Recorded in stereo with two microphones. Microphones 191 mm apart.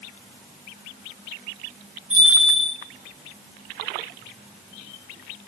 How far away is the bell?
About 4 m.